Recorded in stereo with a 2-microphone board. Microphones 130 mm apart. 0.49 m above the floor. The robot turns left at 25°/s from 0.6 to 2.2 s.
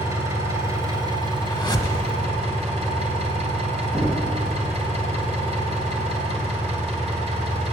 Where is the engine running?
25° right, 2.5 m; by 7.7 s 65° right, 2.5 m.